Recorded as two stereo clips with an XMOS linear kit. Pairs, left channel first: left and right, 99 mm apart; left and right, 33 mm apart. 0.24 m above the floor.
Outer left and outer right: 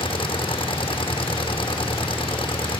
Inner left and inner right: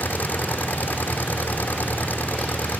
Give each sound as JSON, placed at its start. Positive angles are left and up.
{"t": 0.0, "sound": "an engine running", "side_deg": 60}